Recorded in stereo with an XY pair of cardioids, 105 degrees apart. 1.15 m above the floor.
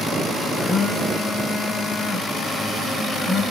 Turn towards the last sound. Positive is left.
turn(degrees=40)